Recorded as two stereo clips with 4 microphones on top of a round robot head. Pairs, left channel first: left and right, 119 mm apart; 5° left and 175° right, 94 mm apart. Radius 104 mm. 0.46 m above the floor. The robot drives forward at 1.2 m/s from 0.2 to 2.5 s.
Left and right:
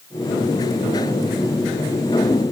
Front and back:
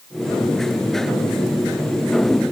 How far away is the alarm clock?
I don't hear an alarm clock.